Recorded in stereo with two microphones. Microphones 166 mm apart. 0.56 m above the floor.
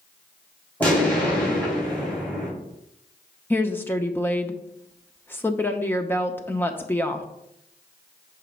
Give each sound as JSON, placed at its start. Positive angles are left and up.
{"t": 0.8, "sound": "an explosion", "side_deg": 10, "distance_m": 4.0}
{"t": 3.5, "sound": "a woman speaking", "side_deg": 15, "distance_m": 0.7}